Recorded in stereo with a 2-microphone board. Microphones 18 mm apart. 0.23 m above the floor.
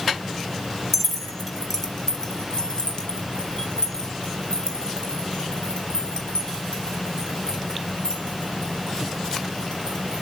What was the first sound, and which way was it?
Keys jangling, 10° left (ahead or behind).